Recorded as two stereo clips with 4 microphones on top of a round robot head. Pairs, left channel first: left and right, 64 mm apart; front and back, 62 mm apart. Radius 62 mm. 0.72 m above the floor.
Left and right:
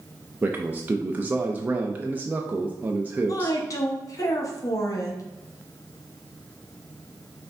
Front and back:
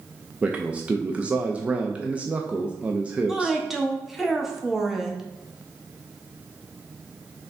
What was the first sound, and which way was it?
A man speaking, 125° right.